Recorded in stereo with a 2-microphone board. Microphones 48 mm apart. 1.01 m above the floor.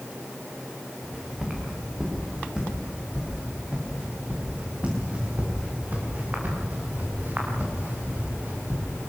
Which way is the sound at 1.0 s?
15° right (ahead or behind).